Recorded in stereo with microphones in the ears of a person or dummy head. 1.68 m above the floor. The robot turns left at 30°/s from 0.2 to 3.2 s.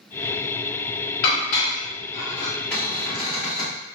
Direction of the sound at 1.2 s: 50° left (ahead or behind).